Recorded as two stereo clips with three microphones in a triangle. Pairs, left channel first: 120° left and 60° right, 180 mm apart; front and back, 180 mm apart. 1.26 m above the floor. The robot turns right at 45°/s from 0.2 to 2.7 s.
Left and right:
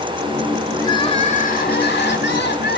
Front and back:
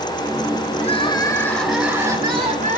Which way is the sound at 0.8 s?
50° left.